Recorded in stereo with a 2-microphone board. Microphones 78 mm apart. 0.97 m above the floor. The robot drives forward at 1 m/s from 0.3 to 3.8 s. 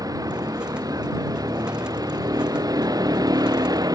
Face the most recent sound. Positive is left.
turn(degrees=-55)  # may be behind; listen again after turning